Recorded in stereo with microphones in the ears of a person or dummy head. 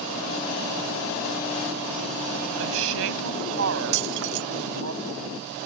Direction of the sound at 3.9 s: 60° right (ahead or behind).